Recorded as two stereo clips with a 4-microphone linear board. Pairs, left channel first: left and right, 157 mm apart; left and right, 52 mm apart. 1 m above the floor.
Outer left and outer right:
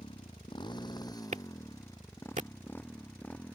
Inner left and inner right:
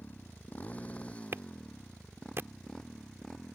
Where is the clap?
50° right (ahead or behind).